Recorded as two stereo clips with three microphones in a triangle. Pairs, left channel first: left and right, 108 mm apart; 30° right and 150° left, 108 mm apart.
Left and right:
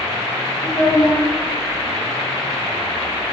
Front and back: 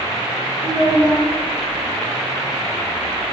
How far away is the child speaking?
About 3 m.